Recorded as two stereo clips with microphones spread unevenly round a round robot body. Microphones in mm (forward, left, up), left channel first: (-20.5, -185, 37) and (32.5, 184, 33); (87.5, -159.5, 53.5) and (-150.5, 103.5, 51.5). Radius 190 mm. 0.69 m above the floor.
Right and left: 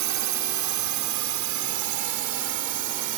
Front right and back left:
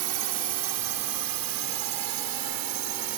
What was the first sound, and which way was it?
A drone, 115° left.